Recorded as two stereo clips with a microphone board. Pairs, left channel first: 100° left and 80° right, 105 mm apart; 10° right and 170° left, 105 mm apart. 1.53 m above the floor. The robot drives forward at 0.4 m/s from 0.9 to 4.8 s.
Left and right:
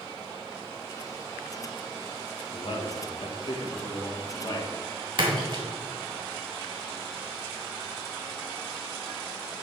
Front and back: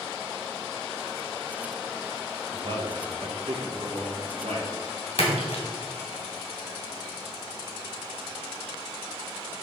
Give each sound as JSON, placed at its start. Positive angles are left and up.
{"t": 2.5, "sound": "a man speaking", "azimuth_deg": 130, "distance_m": 1.4}
{"t": 5.2, "sound": "a splash", "azimuth_deg": -40, "distance_m": 2.0}